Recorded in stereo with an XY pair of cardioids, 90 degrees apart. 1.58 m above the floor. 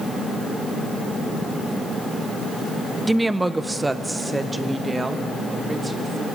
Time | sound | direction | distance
3.1 | a woman speaking | 10° right | 0.7 m